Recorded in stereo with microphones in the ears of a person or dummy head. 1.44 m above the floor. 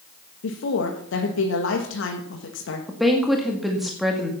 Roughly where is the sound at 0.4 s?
Left.